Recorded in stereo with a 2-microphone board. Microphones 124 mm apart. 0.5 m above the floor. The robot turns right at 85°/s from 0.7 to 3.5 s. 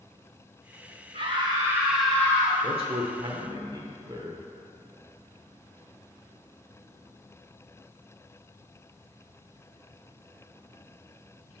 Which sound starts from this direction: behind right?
A man speaking, at 2.6 s.